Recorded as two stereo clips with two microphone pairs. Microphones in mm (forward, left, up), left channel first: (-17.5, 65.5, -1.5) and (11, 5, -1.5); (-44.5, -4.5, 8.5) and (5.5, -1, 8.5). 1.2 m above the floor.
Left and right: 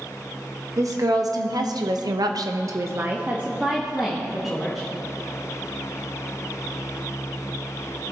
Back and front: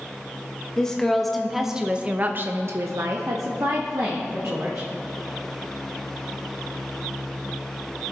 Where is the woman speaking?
100° right, 1.2 m; by 4.9 s 30° left, 1.6 m.